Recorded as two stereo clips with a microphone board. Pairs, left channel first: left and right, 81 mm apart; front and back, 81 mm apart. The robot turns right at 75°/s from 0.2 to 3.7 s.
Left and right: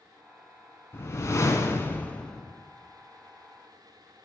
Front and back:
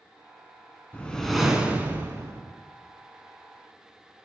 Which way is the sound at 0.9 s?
60° left.